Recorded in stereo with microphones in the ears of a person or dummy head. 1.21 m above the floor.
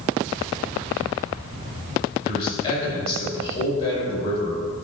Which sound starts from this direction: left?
A man speaking, at 2.2 s.